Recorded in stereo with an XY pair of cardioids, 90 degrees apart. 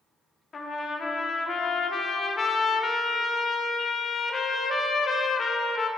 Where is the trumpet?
45° left, 0.7 m.